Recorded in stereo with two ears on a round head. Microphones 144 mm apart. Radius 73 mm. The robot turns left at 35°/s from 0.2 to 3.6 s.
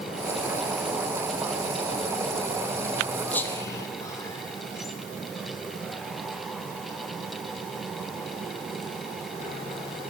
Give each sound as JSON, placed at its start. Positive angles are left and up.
{"t": 3.3, "sound": "whispering", "side_deg": 10, "distance_m": 0.7}